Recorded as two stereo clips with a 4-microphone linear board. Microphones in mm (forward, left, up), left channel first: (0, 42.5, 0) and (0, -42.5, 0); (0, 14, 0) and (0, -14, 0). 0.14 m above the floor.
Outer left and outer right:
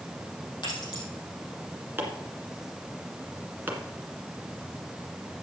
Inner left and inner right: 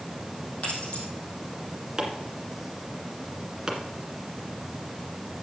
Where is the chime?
I don't hear a chime.